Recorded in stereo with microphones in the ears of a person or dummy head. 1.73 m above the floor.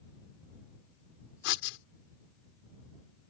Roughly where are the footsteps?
I don't hear footsteps.